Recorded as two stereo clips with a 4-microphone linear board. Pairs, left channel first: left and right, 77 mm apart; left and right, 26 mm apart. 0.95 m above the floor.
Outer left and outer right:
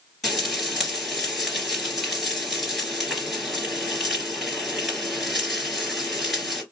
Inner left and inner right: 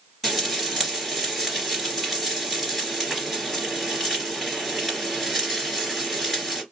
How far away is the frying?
About 2 m.